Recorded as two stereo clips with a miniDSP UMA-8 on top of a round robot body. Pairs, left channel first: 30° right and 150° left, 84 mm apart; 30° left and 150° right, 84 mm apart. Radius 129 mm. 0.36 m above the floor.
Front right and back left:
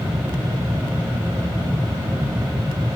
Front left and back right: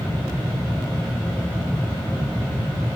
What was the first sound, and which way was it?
Only background noise.